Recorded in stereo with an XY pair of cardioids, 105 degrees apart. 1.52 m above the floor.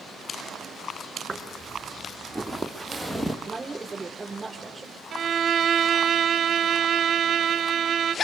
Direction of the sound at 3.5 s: 20° right.